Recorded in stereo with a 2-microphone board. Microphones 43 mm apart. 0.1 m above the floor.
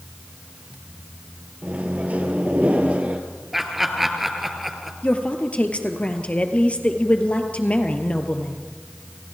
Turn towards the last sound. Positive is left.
turn(degrees=30)  # may be behind; listen again after turning